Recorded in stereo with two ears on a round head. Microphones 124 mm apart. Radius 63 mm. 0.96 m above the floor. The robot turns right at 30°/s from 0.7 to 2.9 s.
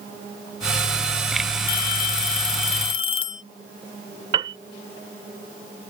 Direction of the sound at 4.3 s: 35° right (ahead or behind).